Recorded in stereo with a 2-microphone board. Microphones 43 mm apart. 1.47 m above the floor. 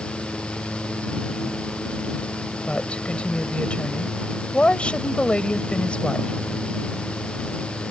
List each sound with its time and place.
2.7 s a woman speaking: 25° left (ahead or behind)